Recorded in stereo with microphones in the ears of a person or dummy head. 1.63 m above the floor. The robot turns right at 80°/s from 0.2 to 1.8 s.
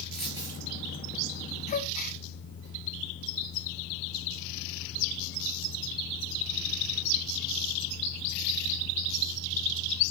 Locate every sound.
0.1 s a dropped coin: straight behind, 5.5 m; by 0.6 s 150° right, 5.5 m
1.7 s a gasp: 40° left (ahead or behind), 1.1 m; by 2.2 s 45° left (ahead or behind), 1.1 m